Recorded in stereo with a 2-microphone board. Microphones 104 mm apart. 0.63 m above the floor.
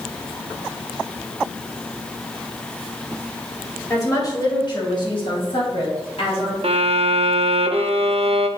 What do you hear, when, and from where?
3.9 s a woman speaking: 30° left (ahead or behind), 2.5 m; by 6.5 s 70° left (ahead or behind), 4 m
6.6 s a violin: 70° right (ahead or behind), 0.6 m